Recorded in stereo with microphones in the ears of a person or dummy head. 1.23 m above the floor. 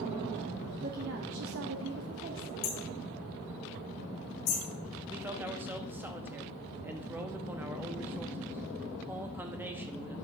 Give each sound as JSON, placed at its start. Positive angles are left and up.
{"t": 0.8, "sound": "a woman speaking", "side_deg": -45, "distance_m": 0.8}
{"t": 2.6, "sound": "hammering", "side_deg": 75, "distance_m": 3.0}
{"t": 5.1, "sound": "a man speaking", "side_deg": -10, "distance_m": 0.7}